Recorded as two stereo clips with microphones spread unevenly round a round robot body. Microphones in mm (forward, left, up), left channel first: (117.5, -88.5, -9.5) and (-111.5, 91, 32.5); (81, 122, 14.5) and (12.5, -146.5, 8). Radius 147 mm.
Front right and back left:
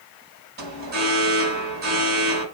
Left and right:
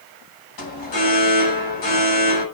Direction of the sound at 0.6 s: 85° left.